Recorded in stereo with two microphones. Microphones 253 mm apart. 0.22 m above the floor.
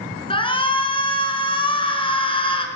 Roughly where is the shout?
Left.